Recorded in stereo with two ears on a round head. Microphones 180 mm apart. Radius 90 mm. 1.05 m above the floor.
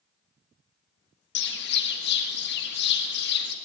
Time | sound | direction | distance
1.4 | a bird | 60° left (ahead or behind) | 1.5 m